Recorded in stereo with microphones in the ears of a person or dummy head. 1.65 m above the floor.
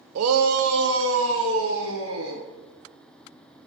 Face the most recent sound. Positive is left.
turn(degrees=-85)